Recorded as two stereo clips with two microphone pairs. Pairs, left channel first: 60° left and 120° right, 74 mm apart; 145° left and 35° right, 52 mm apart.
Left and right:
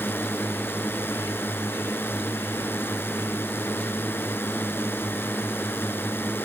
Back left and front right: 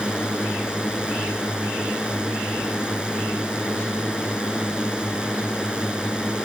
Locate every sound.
0.0 s a drone: 25° left